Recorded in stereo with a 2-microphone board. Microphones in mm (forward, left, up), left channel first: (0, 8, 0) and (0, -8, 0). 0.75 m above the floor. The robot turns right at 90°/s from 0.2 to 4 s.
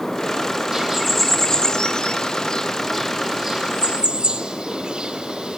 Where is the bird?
25° right (ahead or behind), 3 m; by 5.6 s 85° right, 3 m.